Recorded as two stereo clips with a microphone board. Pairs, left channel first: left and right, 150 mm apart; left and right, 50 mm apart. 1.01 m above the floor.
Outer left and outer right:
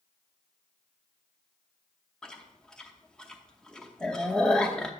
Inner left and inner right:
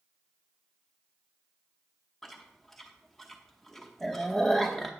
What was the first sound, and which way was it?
Chewing, 5° left (ahead or behind).